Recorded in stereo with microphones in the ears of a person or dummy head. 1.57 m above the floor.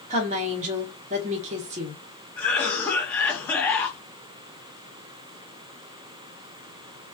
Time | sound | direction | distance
0.1 | a woman speaking | 35° right (ahead or behind) | 0.7 m
2.4 | a cough | 10° left (ahead or behind) | 0.7 m